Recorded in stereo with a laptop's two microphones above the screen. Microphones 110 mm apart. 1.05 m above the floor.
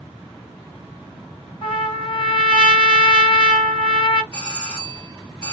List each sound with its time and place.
1.6 s a trumpet: 50° left (ahead or behind), 1.8 m
4.3 s a doorbell: 50° left (ahead or behind), 1.5 m